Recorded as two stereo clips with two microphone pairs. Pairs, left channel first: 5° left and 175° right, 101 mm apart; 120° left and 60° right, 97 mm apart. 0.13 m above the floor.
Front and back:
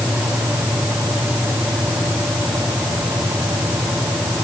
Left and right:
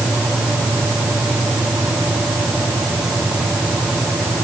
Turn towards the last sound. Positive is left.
No sound to turn to.